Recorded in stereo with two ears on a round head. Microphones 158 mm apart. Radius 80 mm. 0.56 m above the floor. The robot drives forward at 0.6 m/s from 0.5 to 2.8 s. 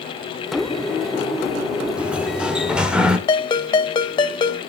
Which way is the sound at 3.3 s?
25° left (ahead or behind).